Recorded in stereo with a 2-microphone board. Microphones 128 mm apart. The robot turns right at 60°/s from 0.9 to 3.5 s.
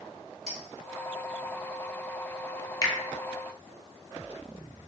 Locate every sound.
0.5 s a clink: 70° right (ahead or behind), 1.6 m
2.8 s a finger snap: 25° left (ahead or behind), 0.6 m